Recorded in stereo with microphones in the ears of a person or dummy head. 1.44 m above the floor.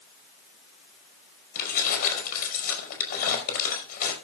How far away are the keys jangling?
About 5 m.